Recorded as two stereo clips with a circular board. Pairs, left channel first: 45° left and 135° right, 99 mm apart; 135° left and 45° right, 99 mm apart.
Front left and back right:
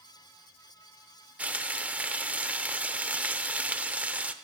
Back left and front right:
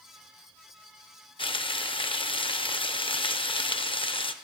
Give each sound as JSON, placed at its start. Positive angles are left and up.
{"t": 1.4, "sound": "frying", "azimuth_deg": 150, "distance_m": 0.5}